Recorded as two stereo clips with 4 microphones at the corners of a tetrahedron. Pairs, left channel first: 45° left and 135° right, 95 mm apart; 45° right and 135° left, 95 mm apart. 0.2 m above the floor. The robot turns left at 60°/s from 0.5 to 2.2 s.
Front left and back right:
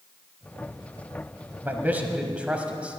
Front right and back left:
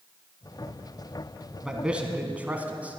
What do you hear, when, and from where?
1.6 s a man speaking: 150° right, 1.2 m; by 3.0 s 175° left, 1.2 m